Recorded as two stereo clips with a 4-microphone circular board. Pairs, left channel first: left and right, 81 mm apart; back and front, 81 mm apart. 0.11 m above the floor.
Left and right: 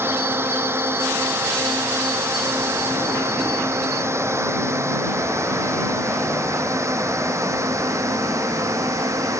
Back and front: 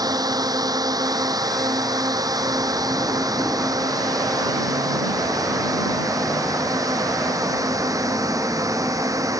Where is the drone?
30° right; by 9.4 s 40° right.